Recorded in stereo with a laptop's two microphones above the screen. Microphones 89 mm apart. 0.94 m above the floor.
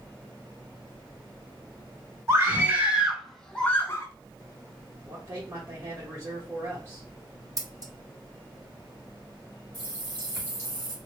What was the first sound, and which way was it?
A scream, 30° right (ahead or behind).